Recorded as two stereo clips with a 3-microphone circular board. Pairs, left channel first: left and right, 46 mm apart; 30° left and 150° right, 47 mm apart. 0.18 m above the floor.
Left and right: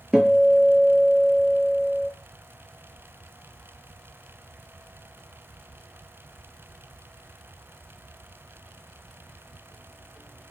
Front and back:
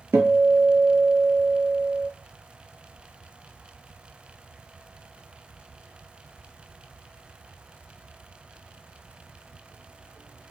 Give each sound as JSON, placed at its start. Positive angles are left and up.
{"t": 0.1, "sound": "a guitar", "azimuth_deg": -165, "distance_m": 0.6}